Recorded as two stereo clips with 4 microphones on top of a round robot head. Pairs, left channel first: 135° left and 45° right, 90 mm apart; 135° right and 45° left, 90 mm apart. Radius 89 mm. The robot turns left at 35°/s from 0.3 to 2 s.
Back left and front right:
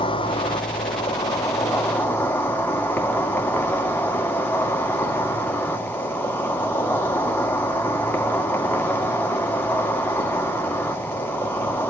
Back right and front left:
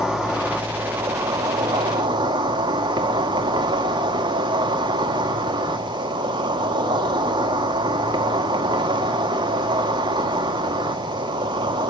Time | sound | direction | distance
0.0 | an insect | 130° left | 2.0 m